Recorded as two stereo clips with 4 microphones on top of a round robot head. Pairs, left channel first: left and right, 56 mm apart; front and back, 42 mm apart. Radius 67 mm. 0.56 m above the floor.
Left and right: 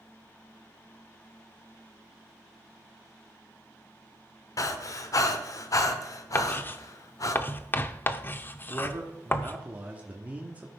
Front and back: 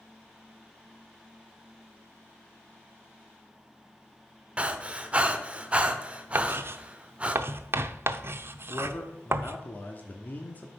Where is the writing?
145° left, 0.6 m.